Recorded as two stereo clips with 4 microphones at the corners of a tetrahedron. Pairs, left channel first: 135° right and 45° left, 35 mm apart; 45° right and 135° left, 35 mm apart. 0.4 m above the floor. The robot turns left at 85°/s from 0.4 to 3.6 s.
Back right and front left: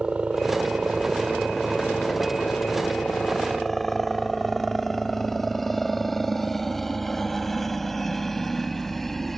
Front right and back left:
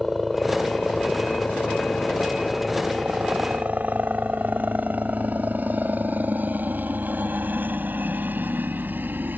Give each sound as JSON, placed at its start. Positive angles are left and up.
{"t": 0.0, "sound": "a helicopter", "azimuth_deg": 50}